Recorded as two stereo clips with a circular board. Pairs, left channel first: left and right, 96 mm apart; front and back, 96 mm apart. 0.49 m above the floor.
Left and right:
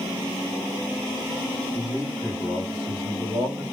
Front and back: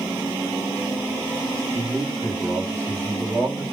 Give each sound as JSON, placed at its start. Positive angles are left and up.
{"t": 1.7, "sound": "a man speaking", "azimuth_deg": -50, "distance_m": 1.8}